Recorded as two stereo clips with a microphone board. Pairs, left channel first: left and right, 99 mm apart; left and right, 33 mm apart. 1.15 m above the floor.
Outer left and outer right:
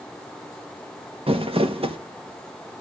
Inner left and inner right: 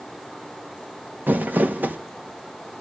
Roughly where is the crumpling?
Right.